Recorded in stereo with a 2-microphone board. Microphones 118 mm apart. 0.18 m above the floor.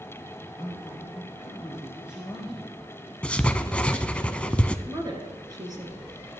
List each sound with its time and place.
0.6 s a man speaking: 10° right (ahead or behind), 3 m
3.2 s writing: 10° left (ahead or behind), 0.6 m
4.9 s a woman speaking: 35° right (ahead or behind), 2.5 m